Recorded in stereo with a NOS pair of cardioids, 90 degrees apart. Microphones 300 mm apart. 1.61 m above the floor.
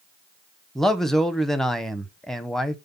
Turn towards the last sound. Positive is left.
turn(degrees=0)